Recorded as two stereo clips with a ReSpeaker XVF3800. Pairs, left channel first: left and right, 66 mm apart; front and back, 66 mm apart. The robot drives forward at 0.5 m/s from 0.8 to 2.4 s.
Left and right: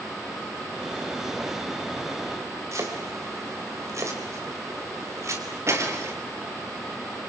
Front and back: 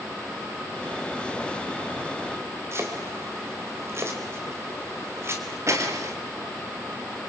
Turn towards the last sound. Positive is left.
turn(degrees=-135)